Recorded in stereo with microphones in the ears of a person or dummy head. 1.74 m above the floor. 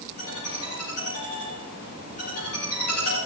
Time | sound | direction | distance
0.2 | a ringtone | 50° left (ahead or behind) | 8 m